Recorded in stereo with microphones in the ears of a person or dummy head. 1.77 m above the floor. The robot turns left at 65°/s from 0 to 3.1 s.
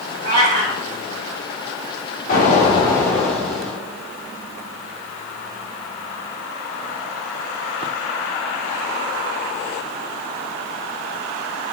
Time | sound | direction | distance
0.2 | a cat meowing | 60° right | 1.8 m
2.3 | an explosion | 65° left | 1.3 m